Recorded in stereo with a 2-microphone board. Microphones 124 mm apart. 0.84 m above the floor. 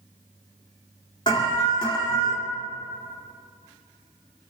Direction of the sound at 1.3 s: 40° left (ahead or behind).